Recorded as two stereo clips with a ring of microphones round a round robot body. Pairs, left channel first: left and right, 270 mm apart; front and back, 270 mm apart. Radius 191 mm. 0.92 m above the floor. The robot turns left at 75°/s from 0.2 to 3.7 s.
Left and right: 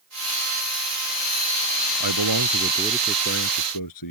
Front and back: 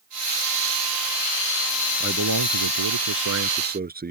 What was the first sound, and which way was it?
A man speaking, 110° right.